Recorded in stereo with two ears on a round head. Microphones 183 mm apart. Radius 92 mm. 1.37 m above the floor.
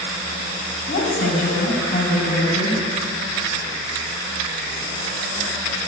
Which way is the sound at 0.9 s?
45° left (ahead or behind).